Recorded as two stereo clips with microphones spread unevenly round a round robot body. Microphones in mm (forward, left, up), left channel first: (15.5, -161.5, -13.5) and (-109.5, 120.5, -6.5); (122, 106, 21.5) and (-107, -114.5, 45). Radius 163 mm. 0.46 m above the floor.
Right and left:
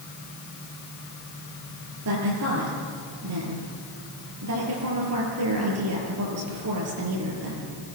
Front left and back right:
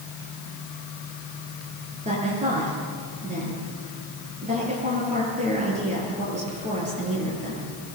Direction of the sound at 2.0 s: 155° left.